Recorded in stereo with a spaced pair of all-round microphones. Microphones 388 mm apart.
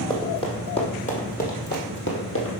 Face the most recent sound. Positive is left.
turn(degrees=35)  # may be behind; listen again after turning